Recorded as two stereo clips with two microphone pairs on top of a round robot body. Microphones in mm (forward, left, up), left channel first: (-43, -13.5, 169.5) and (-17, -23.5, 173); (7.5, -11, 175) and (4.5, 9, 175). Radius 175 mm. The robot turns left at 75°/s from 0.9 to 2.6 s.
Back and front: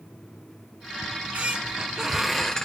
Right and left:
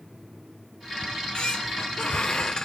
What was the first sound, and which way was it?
A squeak, 20° right.